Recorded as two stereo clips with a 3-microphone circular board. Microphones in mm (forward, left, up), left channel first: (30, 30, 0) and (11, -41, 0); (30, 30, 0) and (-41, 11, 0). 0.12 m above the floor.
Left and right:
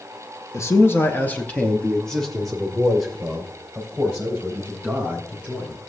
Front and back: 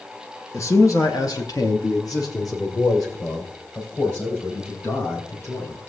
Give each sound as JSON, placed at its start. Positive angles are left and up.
{"t": 0.5, "sound": "a man speaking", "azimuth_deg": 45, "distance_m": 1.6}